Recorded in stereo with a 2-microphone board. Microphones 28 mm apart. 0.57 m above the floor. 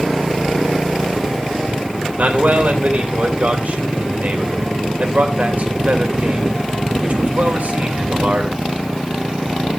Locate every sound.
2.2 s a man speaking: 65° right (ahead or behind), 3 m